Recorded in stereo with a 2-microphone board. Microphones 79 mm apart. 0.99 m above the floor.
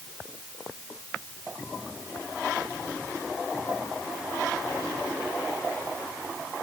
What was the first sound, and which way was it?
Only background noise.